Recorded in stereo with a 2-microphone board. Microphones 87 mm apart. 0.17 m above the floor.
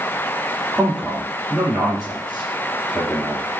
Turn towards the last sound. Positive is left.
turn(degrees=5)  # may be behind; listen again after turning